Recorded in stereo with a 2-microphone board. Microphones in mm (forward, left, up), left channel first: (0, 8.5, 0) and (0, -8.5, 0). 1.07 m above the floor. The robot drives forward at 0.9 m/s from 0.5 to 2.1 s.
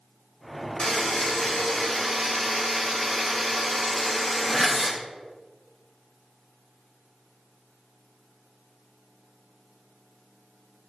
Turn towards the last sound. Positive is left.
turn(degrees=35)  # may be behind; listen again after turning